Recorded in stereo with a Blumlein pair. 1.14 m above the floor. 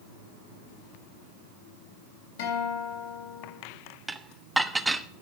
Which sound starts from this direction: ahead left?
A guitar, at 2.4 s.